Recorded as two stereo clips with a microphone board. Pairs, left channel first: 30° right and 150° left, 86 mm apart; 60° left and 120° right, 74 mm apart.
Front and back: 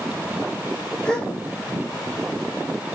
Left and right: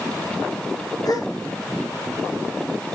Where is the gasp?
45° left, 1.3 m.